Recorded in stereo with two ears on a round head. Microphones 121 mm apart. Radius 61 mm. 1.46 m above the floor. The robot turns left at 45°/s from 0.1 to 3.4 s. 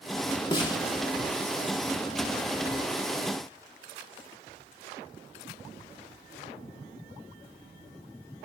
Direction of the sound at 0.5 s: 35° left (ahead or behind).